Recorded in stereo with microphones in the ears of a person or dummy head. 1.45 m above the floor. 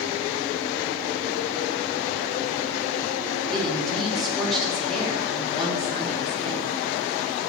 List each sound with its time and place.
3.5 s a woman speaking: centre (ahead or behind), 3.5 m